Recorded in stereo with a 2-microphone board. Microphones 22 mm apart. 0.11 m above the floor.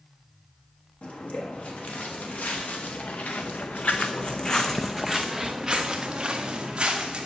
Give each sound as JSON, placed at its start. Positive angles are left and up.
{"t": 1.0, "sound": "footsteps", "side_deg": 75, "distance_m": 2.0}